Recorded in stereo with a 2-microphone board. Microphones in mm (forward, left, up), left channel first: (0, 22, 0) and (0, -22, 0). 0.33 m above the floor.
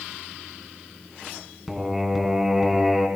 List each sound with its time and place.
1.7 s singing: 10° right (ahead or behind), 2.5 m